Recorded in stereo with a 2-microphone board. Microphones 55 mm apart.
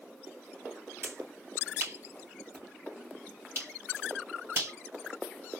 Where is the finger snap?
45° right (ahead or behind), 3 m.